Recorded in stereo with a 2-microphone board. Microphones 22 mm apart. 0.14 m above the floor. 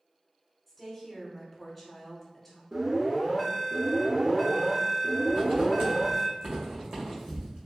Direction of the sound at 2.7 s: 10° right (ahead or behind).